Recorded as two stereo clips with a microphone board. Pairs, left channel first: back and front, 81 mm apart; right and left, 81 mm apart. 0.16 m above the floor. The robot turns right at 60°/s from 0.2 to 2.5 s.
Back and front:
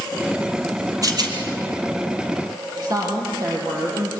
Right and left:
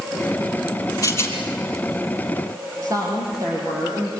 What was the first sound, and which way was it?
A rattle, 45° right.